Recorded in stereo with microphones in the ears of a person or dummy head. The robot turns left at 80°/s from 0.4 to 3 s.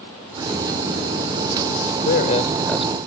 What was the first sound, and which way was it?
A man speaking, 90° left.